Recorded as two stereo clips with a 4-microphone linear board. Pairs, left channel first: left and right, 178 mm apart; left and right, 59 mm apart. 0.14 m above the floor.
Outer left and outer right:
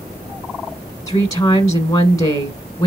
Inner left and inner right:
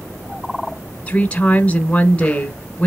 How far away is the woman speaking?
About 1.1 m.